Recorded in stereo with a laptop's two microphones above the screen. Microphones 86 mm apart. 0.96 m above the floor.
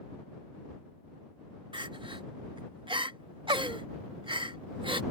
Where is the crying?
70° right (ahead or behind).